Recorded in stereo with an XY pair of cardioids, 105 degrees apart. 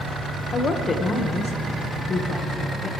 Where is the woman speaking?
40° left, 1.6 m.